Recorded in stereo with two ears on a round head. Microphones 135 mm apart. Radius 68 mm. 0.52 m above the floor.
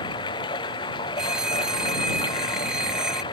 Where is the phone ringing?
5° right (ahead or behind).